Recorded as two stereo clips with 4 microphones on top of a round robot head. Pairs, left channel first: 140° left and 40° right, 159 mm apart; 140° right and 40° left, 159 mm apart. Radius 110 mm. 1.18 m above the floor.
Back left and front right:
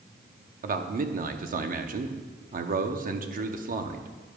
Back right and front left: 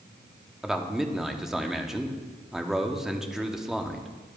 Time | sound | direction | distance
0.6 | a man speaking | 50° right | 0.8 m